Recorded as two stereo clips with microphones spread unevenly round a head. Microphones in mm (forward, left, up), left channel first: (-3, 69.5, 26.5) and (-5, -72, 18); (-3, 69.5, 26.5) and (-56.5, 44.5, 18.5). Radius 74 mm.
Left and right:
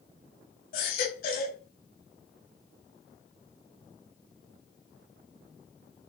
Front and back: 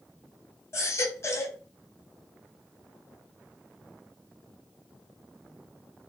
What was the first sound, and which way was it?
A baby crying, 60° left.